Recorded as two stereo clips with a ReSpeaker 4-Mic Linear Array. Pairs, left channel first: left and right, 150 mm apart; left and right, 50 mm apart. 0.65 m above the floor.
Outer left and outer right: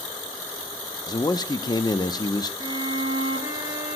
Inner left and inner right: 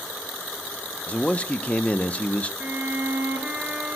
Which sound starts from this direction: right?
A violin, at 2.6 s.